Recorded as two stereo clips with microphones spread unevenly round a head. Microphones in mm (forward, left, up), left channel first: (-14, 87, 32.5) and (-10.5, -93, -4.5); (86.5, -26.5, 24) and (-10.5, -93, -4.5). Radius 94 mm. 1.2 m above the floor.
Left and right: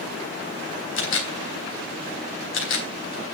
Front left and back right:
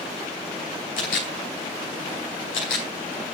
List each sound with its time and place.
1.0 s a camera shutter: 65° left, 3.5 m